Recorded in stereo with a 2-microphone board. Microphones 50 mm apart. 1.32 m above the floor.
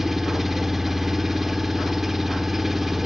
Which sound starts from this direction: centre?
An engine running, at 0.0 s.